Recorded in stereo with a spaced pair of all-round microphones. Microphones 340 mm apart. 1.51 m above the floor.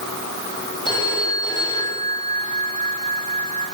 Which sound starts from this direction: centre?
A phone ringing, at 0.8 s.